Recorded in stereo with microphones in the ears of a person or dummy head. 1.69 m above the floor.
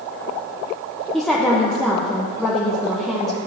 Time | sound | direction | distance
1.1 | a woman speaking | centre (ahead or behind) | 0.9 m